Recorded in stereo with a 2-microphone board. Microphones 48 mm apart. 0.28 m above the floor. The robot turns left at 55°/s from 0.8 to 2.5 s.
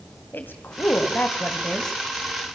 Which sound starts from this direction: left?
A woman speaking, at 0.3 s.